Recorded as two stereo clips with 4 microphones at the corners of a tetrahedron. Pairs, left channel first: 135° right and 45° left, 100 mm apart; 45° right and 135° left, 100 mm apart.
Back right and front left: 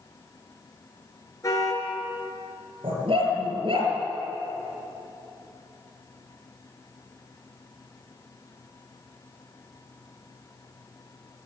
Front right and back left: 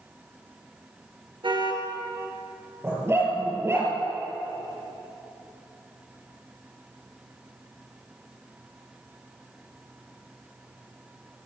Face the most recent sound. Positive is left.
turn(degrees=70)